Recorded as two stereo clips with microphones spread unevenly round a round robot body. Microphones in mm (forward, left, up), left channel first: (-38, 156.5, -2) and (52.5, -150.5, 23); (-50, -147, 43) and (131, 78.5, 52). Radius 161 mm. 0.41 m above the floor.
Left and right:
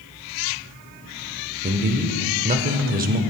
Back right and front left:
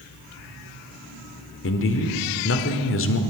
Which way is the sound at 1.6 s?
135° right.